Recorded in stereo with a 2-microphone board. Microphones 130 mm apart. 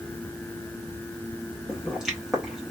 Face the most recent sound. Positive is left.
turn(degrees=-5)  # may be behind; listen again after turning